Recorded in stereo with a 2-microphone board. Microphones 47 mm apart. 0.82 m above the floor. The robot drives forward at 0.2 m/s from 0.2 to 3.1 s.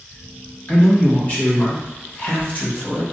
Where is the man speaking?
35° left (ahead or behind), 1.2 m; by 3.0 s 40° left (ahead or behind), 1.2 m.